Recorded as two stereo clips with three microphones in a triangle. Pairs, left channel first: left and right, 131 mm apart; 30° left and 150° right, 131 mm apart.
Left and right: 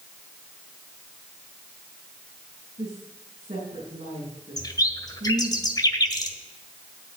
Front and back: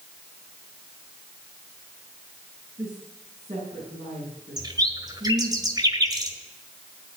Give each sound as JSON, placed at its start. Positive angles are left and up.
{"t": 2.8, "sound": "a woman speaking", "azimuth_deg": -115, "distance_m": 5.5}
{"t": 4.6, "sound": "a bird", "azimuth_deg": 150, "distance_m": 1.6}